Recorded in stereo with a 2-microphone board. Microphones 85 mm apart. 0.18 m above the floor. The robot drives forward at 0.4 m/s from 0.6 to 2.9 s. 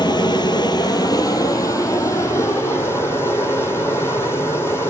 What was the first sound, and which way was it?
Running water, 60° left (ahead or behind).